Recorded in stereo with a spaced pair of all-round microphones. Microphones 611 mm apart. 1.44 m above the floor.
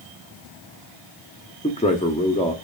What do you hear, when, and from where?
1.6 s a man speaking: 10° left (ahead or behind), 0.5 m